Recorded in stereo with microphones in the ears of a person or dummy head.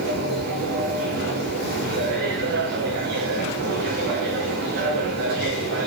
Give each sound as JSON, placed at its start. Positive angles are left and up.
{"t": 0.0, "sound": "a machine running", "side_deg": -60, "distance_m": 3.0}